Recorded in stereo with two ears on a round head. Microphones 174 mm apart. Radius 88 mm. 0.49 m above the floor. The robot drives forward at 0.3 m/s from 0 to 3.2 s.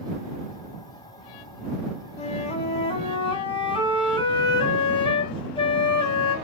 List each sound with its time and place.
2.2 s a flute: 35° left (ahead or behind), 1.5 m; by 6.3 s 30° left (ahead or behind), 1.7 m